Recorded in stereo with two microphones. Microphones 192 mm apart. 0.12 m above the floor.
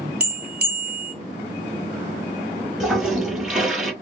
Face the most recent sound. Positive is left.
turn(degrees=-5)  # may be behind; listen again after turning